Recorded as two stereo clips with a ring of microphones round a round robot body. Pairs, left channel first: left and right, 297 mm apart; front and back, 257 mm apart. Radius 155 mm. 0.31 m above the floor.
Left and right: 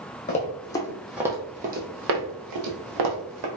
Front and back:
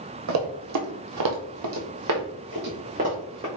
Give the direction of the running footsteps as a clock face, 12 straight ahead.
7 o'clock.